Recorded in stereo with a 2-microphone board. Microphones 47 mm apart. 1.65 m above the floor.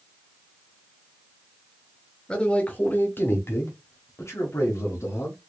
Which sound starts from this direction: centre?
A man speaking, at 2.3 s.